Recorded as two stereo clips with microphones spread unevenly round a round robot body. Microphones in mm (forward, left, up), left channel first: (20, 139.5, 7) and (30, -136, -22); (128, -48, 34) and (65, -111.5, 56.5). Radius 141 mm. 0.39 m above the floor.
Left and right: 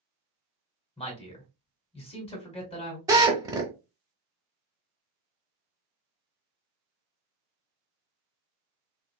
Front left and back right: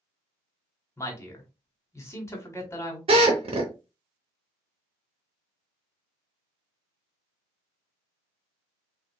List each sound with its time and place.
1.0 s a man speaking: 25° left, 1.5 m
3.1 s a drill: 165° right, 0.7 m